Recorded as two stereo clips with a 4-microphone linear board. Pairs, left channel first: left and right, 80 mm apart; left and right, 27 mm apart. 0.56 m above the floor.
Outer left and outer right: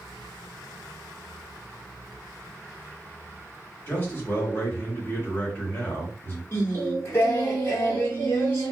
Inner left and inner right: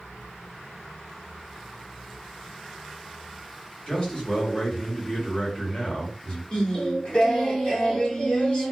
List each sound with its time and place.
3.9 s a man speaking: 30° left (ahead or behind), 1.2 m
6.5 s singing: 35° left (ahead or behind), 1.1 m